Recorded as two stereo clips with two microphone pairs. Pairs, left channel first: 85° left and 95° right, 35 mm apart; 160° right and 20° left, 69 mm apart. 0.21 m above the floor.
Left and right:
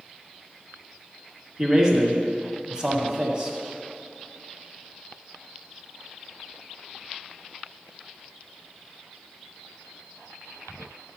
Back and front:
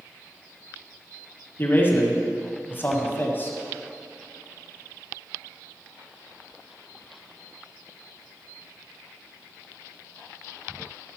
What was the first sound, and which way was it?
A man speaking, 140° right.